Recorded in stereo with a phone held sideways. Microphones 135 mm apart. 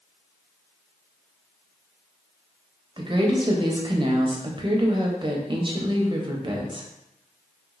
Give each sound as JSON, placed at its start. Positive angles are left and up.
{"t": 3.0, "sound": "a woman speaking", "side_deg": -35, "distance_m": 0.6}